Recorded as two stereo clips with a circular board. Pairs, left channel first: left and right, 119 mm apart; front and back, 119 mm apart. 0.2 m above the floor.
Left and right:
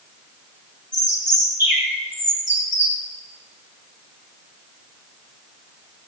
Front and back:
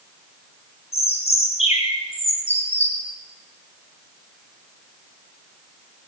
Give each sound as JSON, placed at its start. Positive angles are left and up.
{"t": 0.9, "sound": "a bird", "azimuth_deg": -20, "distance_m": 4.0}